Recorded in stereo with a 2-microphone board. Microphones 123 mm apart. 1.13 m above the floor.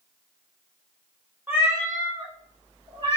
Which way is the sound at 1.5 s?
15° right (ahead or behind).